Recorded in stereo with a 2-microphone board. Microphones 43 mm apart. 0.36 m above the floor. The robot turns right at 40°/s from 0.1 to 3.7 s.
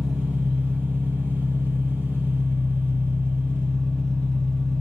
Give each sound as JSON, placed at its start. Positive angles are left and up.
{"t": 0.0, "sound": "an engine running", "azimuth_deg": 15, "distance_m": 0.9}